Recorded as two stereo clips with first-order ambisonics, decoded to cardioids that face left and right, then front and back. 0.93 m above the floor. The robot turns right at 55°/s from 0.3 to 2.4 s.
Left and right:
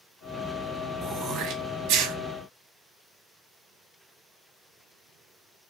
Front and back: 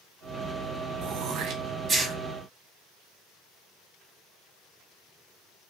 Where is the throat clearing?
160° right, 0.6 m; by 2.1 s 100° right, 0.6 m.